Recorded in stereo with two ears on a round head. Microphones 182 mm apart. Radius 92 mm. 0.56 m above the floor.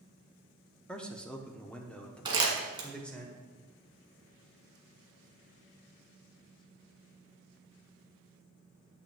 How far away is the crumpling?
About 1.8 m.